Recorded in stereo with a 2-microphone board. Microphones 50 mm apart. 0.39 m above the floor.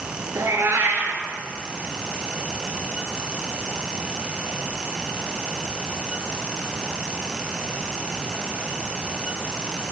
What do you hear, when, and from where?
0.3 s a cat meowing: 65° right (ahead or behind), 2.0 m